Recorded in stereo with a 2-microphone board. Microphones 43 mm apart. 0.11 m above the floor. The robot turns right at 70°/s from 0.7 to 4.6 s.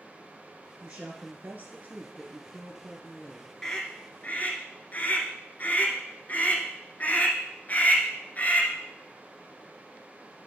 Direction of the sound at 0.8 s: 140° right.